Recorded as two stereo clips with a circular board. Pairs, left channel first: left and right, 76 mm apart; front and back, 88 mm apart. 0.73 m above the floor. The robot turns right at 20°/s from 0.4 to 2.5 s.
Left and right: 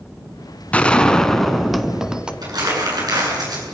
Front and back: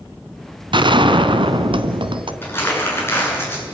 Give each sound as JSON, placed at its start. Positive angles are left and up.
{"t": 0.7, "sound": "a gunshot", "azimuth_deg": 160, "distance_m": 1.4}
{"t": 2.4, "sound": "crumpling", "azimuth_deg": -65, "distance_m": 7.5}